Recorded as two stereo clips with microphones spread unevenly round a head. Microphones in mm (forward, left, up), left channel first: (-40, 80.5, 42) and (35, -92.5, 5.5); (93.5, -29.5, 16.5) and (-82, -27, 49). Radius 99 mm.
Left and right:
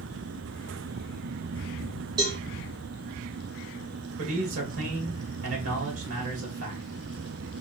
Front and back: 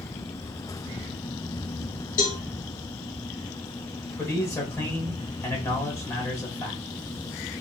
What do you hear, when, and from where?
2.2 s a cowbell: 5° left, 1.1 m
4.2 s a man speaking: 75° right, 2.5 m